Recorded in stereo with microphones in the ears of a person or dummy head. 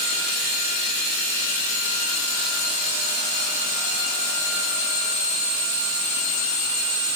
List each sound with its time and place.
Only background noise.